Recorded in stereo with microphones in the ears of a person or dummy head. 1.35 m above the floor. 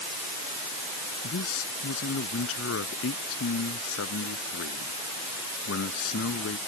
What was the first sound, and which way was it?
A man speaking, 85° left.